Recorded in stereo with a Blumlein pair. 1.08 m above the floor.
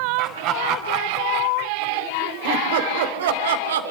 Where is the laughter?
40° right, 4.5 m; by 3.9 s 60° right, 2.5 m.